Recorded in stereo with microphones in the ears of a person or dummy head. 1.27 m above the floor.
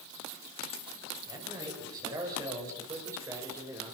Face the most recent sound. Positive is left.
turn(degrees=-15)  # may be behind; listen again after turning